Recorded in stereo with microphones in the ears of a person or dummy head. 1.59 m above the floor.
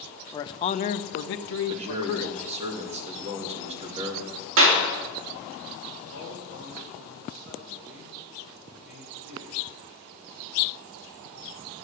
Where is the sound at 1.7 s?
35° right (ahead or behind), 2.5 m.